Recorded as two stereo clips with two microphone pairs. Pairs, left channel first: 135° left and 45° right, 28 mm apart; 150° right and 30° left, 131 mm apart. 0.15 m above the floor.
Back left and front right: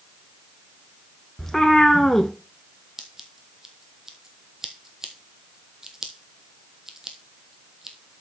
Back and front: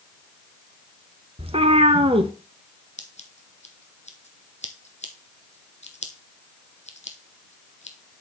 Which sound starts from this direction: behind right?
Scissors, at 3.0 s.